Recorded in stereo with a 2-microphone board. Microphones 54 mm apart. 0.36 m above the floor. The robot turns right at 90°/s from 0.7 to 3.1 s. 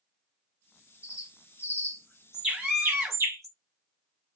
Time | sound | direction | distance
1.0 | a bird | 65° left (ahead or behind) | 1.2 m
2.5 | a scream | 10° right (ahead or behind) | 0.9 m